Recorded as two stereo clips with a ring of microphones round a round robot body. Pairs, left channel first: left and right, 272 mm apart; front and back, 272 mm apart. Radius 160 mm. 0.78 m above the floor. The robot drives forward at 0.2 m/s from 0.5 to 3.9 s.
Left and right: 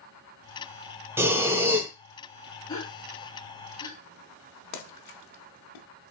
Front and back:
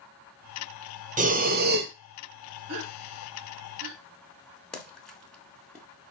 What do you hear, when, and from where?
1.2 s breathing: 165° right, 0.7 m; by 1.9 s 170° right, 0.8 m
2.7 s a gasp: 160° left, 1.2 m; by 4.0 s 165° left, 1.3 m
4.7 s a splash: 90° left, 1.0 m